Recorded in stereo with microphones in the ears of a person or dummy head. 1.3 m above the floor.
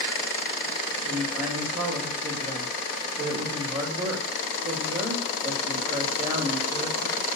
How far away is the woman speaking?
About 4 m.